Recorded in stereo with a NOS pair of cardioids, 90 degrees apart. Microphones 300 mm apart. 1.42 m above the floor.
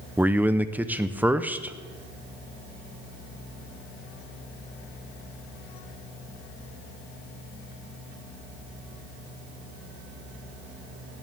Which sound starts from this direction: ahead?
A man speaking, at 0.2 s.